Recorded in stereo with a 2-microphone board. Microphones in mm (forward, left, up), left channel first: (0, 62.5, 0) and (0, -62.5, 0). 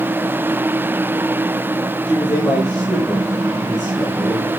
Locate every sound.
2.0 s a man speaking: 10° left (ahead or behind), 8.5 m; by 4.5 s 10° right (ahead or behind), 8 m